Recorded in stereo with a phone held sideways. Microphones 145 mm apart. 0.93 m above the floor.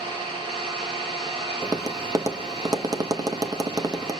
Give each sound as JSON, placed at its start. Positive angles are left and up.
{"t": 0.0, "sound": "an engine running", "side_deg": -35, "distance_m": 1.9}
{"t": 1.6, "sound": "tapping", "side_deg": -25, "distance_m": 0.6}